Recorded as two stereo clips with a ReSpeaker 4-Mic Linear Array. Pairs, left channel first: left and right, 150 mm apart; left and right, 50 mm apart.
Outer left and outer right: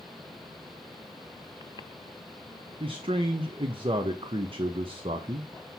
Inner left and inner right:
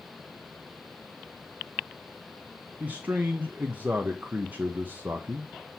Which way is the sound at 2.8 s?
35° right (ahead or behind).